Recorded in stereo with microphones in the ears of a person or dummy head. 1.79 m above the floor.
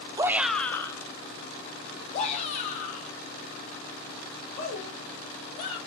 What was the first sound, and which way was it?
A shout, 20° right (ahead or behind).